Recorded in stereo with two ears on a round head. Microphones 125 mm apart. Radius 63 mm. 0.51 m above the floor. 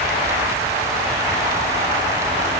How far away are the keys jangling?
I don't hear keys jangling.